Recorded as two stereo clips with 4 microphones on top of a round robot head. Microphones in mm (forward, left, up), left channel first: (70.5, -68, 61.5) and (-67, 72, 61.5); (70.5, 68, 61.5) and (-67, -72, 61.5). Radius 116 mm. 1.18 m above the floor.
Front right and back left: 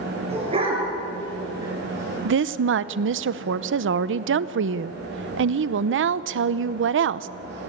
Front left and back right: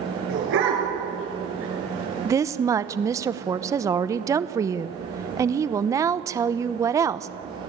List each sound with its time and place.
0.3 s a dog barking: 165° right, 8 m; by 3.2 s 140° right, 7 m
2.2 s a woman speaking: 150° left, 0.8 m